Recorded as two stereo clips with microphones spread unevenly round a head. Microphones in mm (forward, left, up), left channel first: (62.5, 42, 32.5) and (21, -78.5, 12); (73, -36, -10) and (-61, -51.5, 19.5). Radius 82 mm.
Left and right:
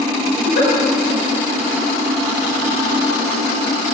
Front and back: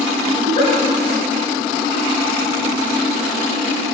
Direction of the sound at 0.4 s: 80° left.